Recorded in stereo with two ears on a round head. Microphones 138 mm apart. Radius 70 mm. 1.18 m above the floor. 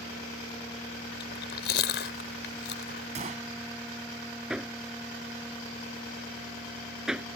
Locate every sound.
1.2 s chewing: 80° left
3.1 s a gunshot: 50° right (ahead or behind)
4.5 s hammering: 5° right (ahead or behind)